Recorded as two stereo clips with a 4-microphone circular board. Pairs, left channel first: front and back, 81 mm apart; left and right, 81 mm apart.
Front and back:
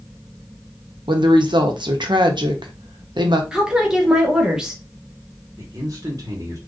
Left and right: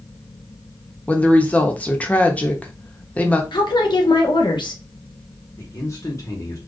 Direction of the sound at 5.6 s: 135° left.